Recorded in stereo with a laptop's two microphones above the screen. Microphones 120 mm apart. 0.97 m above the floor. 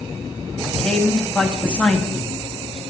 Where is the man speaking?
5° left (ahead or behind), 1.8 m.